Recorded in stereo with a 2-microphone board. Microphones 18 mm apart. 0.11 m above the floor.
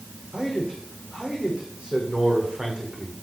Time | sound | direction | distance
0.3 | a man speaking | 60° right (ahead or behind) | 5.5 m